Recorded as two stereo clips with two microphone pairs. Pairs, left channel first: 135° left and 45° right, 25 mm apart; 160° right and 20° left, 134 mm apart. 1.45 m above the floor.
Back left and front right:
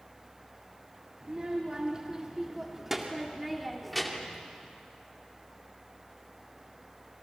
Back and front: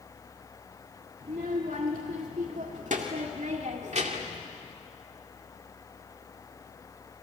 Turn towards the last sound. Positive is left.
turn(degrees=50)